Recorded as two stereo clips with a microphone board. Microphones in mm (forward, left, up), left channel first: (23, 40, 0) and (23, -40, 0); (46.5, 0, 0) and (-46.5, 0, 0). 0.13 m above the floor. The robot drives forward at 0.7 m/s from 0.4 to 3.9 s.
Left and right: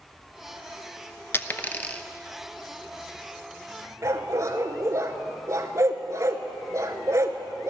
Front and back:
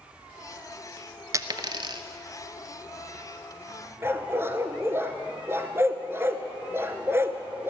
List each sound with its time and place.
1.3 s a dropped coin: 140° left, 0.5 m; by 2.0 s 160° left, 0.9 m
4.0 s a dog barking: 125° right, 0.9 m